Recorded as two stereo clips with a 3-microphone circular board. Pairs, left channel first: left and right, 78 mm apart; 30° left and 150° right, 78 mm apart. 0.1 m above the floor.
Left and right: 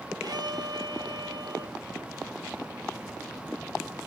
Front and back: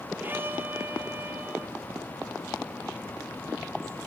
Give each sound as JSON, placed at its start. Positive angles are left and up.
{"t": 0.2, "sound": "a violin", "azimuth_deg": -85, "distance_m": 1.3}